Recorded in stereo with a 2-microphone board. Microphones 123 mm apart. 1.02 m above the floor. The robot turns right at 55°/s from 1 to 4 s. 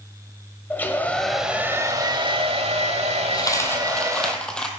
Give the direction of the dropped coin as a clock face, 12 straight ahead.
7 o'clock.